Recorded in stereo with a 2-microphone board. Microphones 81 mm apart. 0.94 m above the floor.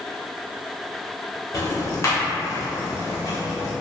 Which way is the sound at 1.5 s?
40° left (ahead or behind).